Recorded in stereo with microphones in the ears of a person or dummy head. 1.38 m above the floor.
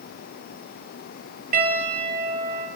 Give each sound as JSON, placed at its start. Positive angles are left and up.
{"t": 1.5, "sound": "a piano", "side_deg": -55, "distance_m": 6.5}